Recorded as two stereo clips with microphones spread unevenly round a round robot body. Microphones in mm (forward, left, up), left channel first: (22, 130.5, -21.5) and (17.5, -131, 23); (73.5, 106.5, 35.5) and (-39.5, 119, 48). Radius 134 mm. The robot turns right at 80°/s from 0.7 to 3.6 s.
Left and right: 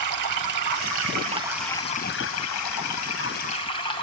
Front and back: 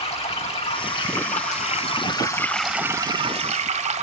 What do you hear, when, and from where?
0.0 s running water: 70° right, 1.9 m; by 4.0 s 160° left, 1.9 m